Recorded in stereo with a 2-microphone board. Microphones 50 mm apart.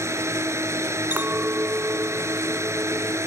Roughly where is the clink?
Right.